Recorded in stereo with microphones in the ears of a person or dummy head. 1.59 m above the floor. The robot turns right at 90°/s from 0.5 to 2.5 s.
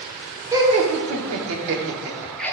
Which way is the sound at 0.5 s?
170° right.